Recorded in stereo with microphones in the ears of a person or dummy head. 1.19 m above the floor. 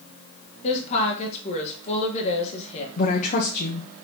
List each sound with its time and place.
0.6 s a woman speaking: 35° left (ahead or behind), 1.4 m
3.0 s a woman speaking: 45° left (ahead or behind), 0.8 m